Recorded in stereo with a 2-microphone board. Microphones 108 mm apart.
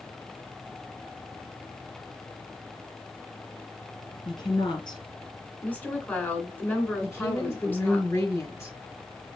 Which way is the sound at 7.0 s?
25° left (ahead or behind).